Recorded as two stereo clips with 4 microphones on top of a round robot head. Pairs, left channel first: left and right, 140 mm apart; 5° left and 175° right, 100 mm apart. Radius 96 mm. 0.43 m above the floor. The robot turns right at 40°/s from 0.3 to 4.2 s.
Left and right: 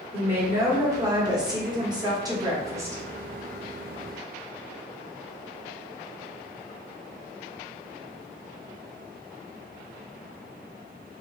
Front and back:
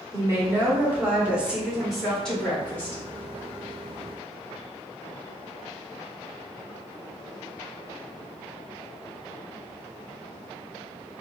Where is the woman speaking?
145° right, 1.2 m; by 3.0 s 40° right, 1.2 m.